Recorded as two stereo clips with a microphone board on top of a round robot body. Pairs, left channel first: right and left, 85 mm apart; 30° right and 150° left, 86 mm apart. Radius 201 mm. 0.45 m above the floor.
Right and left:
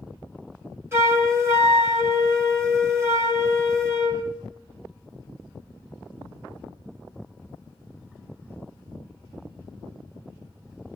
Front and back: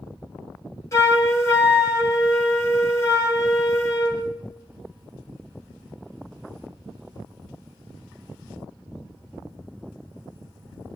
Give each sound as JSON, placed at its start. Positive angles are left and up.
{"t": 0.9, "sound": "a flute", "azimuth_deg": 30, "distance_m": 3.0}